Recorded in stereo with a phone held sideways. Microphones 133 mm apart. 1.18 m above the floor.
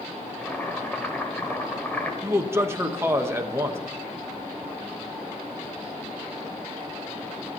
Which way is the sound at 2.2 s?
20° right (ahead or behind).